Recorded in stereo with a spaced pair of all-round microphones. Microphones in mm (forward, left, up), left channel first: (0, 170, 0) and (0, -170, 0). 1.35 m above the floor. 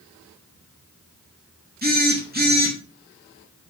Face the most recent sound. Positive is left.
turn(degrees=-25)  # may be behind; listen again after turning